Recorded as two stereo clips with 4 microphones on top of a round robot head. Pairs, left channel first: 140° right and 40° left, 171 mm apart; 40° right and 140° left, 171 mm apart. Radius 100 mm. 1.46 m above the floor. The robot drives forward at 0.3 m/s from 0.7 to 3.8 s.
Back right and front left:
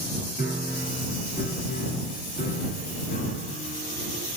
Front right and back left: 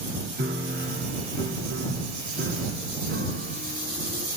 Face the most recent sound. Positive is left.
turn(degrees=175)